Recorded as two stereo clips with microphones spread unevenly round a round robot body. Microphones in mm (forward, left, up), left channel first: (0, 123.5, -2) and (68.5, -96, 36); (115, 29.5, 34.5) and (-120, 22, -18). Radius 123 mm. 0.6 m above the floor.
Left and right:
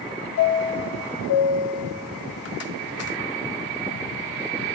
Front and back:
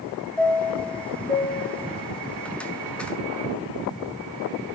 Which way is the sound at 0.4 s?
90° left.